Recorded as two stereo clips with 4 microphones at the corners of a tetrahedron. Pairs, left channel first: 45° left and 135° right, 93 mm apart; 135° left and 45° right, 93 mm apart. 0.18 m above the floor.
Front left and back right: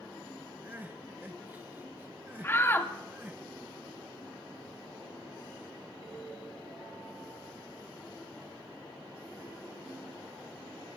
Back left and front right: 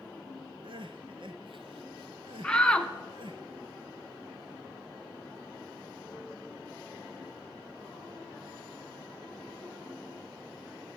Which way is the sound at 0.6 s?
65° right.